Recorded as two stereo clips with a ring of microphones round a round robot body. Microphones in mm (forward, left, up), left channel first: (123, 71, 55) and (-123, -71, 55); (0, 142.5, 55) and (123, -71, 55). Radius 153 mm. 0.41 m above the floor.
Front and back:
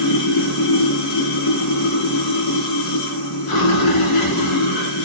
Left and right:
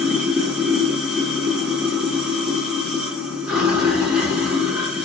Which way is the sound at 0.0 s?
25° left.